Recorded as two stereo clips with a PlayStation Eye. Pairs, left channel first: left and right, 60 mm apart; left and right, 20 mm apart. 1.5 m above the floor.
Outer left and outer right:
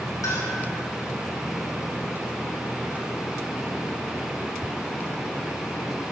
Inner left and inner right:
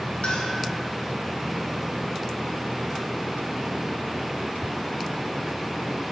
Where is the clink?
70° left (ahead or behind), 5 m.